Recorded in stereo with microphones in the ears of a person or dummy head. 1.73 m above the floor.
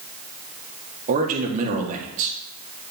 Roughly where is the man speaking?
Right.